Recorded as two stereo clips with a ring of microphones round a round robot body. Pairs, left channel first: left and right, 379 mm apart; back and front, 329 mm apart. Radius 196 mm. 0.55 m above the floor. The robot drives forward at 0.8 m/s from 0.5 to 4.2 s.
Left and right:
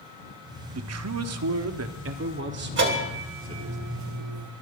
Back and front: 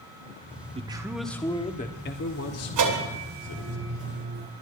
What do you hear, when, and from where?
0.7 s a man speaking: 65° right, 1.3 m; by 3.8 s 160° right, 2.5 m
2.8 s a bell: 30° right, 2.5 m; by 4.5 s 60° right, 1.5 m